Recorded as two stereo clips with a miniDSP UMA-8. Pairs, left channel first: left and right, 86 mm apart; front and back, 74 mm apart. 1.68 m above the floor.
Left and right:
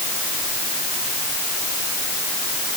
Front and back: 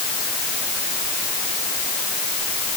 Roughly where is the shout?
No shout in this recording.